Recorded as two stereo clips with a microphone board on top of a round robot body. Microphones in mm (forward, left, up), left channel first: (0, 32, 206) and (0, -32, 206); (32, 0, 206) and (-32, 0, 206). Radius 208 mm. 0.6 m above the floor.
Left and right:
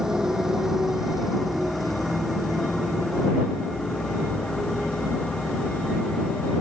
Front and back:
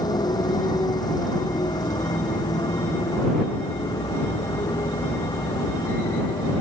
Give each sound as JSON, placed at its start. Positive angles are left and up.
{"t": 0.0, "sound": "a motorcycle", "azimuth_deg": -10}